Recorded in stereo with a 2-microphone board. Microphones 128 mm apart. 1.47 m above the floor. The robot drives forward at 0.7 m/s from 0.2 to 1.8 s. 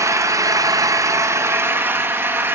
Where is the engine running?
25° right (ahead or behind), 0.8 m; by 2.5 s 15° right (ahead or behind), 1.0 m.